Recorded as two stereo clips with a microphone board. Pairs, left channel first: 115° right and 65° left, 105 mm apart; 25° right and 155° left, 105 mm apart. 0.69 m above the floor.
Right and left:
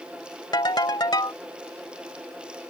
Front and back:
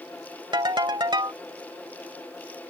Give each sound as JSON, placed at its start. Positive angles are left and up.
{"t": 0.5, "sound": "a ringtone", "azimuth_deg": -160}